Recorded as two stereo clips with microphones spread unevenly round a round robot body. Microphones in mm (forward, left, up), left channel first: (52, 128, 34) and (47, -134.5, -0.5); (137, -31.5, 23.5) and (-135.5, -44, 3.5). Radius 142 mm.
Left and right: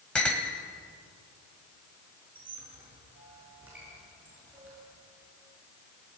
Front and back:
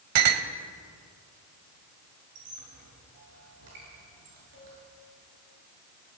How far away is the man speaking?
I don't hear a man speaking.